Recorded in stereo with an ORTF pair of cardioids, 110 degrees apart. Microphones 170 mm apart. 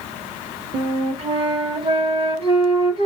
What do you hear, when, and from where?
0.7 s a flute: 35° right, 1.2 m